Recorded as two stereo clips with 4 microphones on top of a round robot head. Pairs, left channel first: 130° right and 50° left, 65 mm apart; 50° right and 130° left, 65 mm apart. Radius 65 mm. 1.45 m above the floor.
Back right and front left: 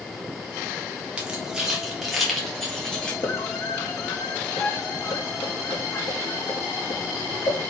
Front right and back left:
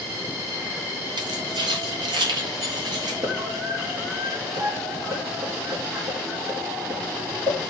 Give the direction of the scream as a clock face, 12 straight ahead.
6 o'clock.